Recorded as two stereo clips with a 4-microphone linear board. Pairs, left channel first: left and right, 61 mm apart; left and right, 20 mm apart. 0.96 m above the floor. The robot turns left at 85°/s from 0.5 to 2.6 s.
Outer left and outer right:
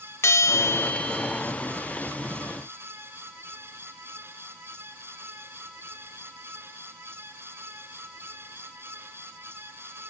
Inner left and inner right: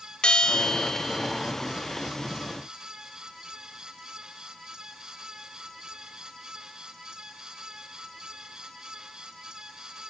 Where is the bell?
65° left, 0.9 m; by 1.4 s 10° right, 0.9 m.